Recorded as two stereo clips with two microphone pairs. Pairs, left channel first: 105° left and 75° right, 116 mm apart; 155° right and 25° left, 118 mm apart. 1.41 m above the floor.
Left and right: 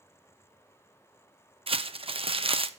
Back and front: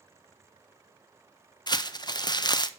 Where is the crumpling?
105° right, 0.6 m.